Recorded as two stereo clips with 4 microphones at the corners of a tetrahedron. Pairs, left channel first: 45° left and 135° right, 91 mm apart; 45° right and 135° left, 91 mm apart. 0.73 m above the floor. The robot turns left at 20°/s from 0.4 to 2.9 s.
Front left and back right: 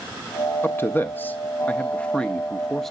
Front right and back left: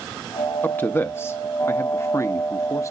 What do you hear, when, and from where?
0.6 s a man speaking: 5° left, 0.6 m; by 2.9 s 40° right, 0.6 m